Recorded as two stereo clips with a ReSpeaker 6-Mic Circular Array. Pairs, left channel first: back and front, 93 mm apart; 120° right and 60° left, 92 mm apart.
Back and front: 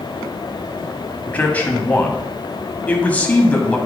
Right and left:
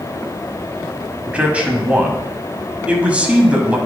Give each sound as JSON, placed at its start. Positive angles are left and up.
{"t": 1.3, "sound": "a man speaking", "azimuth_deg": 120, "distance_m": 1.1}